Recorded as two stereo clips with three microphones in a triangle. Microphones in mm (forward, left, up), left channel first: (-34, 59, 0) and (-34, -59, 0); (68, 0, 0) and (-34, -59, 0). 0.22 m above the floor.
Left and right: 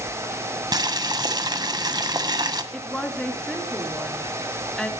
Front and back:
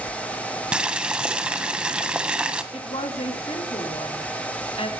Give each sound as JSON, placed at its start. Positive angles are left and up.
{"t": 0.7, "sound": "boiling", "azimuth_deg": -75, "distance_m": 1.6}
{"t": 2.7, "sound": "a woman speaking", "azimuth_deg": 5, "distance_m": 3.0}